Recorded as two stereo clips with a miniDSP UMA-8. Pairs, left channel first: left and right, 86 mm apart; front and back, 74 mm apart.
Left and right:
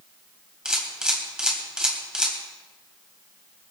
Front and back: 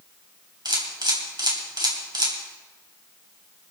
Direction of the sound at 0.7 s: 170° right.